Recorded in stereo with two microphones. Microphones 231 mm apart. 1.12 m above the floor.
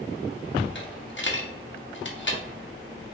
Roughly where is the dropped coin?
Left.